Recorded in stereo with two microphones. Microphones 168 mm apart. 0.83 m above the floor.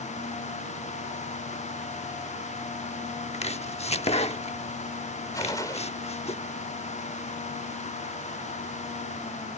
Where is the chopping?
40° left (ahead or behind).